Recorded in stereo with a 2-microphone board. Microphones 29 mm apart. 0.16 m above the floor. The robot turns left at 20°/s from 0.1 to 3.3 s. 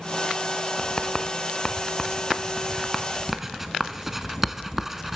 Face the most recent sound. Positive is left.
turn(degrees=-10)  # may be behind; listen again after turning